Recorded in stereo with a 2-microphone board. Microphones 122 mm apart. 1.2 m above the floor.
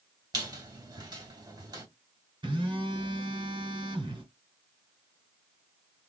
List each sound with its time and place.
0.3 s a squeak: 35° right (ahead or behind), 1.8 m
2.4 s a phone buzzing: 40° right (ahead or behind), 1.8 m